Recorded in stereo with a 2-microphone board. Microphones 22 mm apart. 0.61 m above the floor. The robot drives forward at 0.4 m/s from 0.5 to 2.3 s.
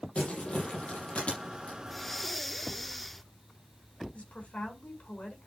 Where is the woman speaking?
80° left, 5.5 m.